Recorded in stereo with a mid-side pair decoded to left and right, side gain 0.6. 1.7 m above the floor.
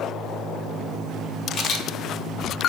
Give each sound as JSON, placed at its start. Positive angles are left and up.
{"t": 1.5, "sound": "a camera shutter", "azimuth_deg": 55, "distance_m": 0.7}